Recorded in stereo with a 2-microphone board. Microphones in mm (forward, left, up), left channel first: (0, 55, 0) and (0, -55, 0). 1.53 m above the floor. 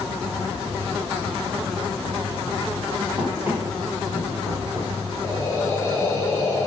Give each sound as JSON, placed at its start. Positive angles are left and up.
{"t": 3.2, "sound": "running footsteps", "side_deg": -20, "distance_m": 4.0}
{"t": 5.2, "sound": "breathing", "side_deg": 30, "distance_m": 4.0}